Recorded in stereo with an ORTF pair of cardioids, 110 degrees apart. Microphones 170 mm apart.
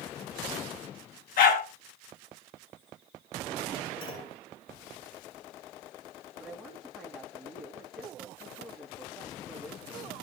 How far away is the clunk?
About 9 m.